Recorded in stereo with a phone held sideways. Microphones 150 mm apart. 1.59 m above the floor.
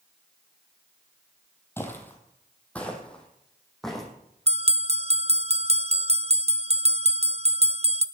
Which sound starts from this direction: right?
A bell, at 4.5 s.